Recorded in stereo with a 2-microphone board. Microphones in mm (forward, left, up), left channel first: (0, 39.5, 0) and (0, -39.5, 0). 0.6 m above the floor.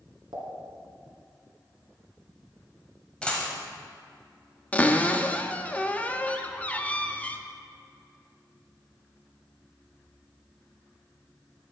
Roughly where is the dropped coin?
Centre.